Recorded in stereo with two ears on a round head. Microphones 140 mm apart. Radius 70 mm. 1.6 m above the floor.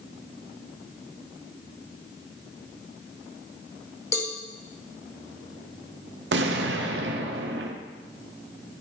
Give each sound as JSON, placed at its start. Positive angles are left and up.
{"t": 4.1, "sound": "a cowbell", "side_deg": 20, "distance_m": 1.1}
{"t": 6.3, "sound": "an explosion", "side_deg": -80, "distance_m": 0.7}